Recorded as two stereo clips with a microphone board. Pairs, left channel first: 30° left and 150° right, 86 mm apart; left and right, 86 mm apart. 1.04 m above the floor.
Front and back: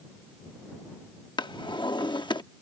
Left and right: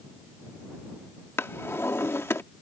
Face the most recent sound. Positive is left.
turn(degrees=30)